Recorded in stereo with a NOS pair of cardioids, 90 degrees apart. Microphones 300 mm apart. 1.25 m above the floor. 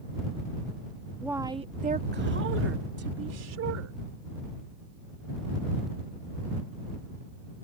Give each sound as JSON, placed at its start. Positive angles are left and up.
{"t": 1.2, "sound": "a woman speaking", "azimuth_deg": -5}